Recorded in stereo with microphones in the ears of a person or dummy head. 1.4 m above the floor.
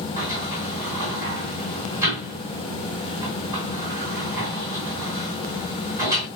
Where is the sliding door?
15° right (ahead or behind), 2.5 m.